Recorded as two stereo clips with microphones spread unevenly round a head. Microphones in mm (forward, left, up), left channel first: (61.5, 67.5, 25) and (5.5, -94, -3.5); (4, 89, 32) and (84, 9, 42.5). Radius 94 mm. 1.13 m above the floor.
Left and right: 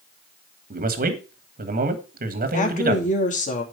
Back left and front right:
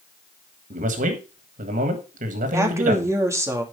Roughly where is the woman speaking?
Ahead.